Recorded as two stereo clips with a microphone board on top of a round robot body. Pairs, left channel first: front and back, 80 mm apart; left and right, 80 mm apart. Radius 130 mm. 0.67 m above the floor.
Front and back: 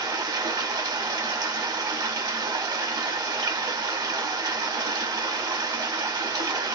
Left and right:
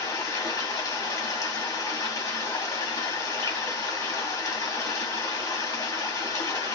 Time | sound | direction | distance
0.0 | running water | 140° left | 1.0 m